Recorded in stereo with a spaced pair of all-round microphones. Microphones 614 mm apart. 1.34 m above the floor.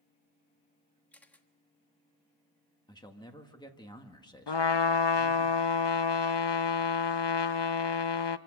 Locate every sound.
1.1 s a camera shutter: centre (ahead or behind), 1.4 m
2.9 s a man speaking: 5° left (ahead or behind), 1.8 m
4.5 s a trumpet: 45° left (ahead or behind), 0.7 m